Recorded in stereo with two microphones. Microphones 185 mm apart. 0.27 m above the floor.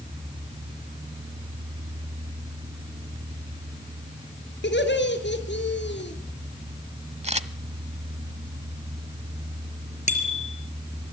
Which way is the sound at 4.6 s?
65° left (ahead or behind).